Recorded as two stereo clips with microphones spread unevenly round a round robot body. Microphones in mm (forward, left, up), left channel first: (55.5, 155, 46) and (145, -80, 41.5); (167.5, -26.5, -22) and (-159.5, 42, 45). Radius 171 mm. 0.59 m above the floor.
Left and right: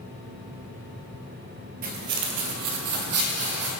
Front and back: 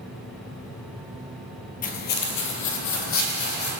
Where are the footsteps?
75° right, 0.6 m; by 3.7 s 65° right, 1.4 m.